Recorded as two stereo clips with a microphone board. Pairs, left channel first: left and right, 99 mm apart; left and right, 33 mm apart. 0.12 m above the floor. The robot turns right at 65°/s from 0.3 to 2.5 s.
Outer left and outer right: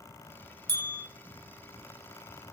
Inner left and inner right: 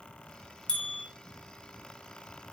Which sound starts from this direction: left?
A bell, at 0.7 s.